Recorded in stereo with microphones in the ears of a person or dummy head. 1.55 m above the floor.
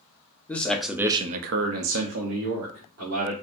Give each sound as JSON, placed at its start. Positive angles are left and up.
{"t": 0.5, "sound": "a man speaking", "side_deg": 15, "distance_m": 1.0}